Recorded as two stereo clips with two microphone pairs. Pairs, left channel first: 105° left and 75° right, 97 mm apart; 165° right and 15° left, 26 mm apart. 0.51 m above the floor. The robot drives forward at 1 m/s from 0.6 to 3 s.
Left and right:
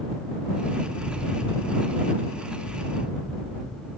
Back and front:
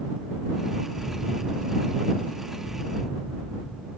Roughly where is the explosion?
Behind.